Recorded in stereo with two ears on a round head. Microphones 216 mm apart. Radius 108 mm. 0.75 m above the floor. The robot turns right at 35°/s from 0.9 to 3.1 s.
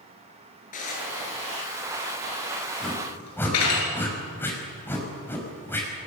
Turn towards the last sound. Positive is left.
turn(degrees=10)  # may be behind; listen again after turning